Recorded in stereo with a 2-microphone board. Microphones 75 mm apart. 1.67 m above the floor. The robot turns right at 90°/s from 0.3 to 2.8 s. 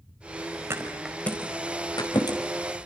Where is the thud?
35° right (ahead or behind), 4.5 m; by 2.4 s 60° left (ahead or behind), 4.5 m.